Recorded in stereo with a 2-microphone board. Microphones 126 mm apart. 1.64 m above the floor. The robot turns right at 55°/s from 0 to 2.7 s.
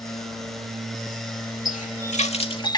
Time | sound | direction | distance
1.6 | a running tap | 85° left | ?